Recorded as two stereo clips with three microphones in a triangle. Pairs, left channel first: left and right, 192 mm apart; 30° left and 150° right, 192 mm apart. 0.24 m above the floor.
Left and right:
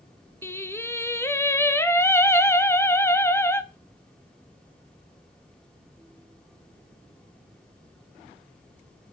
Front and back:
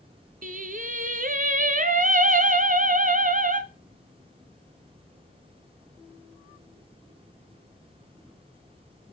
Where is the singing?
170° left, 0.6 m.